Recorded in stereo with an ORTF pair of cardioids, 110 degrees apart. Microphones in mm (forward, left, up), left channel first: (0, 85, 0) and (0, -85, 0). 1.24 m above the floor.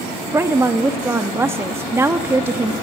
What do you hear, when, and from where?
0.3 s a woman speaking: 15° right, 1.6 m